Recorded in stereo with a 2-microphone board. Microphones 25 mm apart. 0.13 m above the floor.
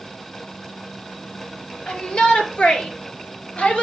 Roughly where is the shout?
Left.